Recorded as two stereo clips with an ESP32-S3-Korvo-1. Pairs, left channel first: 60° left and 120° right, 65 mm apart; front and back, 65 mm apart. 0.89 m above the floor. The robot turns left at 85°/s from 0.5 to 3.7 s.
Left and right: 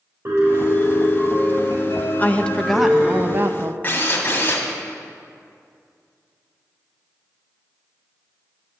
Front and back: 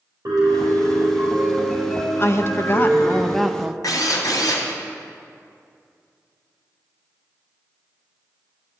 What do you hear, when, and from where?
0.2 s a piano: 165° right, 5 m; by 3.2 s 30° right, 5 m
2.2 s a woman speaking: 20° left, 0.7 m; by 3.7 s 110° right, 0.7 m
3.8 s a drill: straight ahead, 2.5 m